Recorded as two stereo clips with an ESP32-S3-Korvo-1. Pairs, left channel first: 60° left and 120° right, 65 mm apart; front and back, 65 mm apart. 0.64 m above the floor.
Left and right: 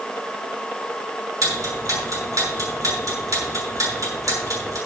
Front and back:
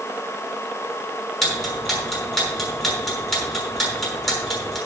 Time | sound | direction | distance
1.4 | ticking | 85° right | 6 m